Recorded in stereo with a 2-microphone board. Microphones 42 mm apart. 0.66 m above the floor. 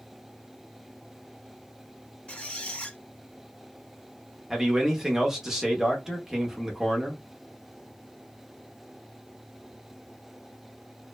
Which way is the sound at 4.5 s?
10° right (ahead or behind).